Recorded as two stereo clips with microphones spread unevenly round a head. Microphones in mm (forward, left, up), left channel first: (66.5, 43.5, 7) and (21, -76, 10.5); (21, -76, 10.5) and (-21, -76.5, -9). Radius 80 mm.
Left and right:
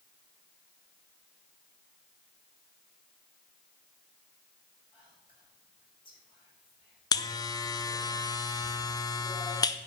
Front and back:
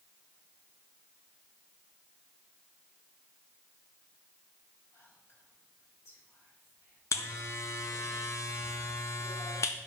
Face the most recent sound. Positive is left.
turn(degrees=25)